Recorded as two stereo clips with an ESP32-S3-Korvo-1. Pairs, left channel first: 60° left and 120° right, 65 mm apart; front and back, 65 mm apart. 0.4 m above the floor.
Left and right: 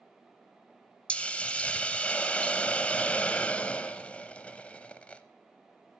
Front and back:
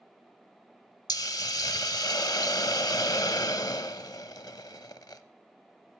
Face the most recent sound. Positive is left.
turn(degrees=-10)